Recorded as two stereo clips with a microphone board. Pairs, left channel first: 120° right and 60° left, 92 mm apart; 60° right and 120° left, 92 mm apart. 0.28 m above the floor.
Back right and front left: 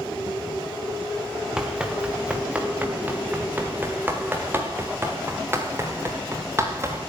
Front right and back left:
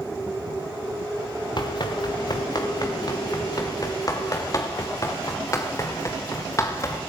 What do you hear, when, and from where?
1.6 s running footsteps: 25° right, 2.5 m; by 7.0 s 5° right, 5 m